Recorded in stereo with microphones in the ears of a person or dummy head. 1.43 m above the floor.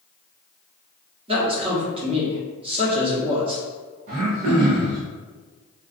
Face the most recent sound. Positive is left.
turn(degrees=-45)  # may be behind; listen again after turning